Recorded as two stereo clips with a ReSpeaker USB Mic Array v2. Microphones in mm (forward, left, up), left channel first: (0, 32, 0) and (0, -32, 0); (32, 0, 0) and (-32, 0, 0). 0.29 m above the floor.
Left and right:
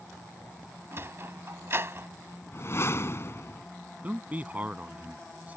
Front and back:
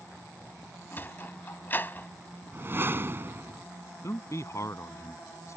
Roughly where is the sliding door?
Ahead right.